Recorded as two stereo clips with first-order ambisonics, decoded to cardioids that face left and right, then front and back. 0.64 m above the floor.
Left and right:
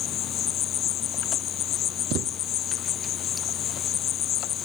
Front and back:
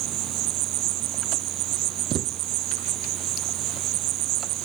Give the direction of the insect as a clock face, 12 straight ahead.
7 o'clock.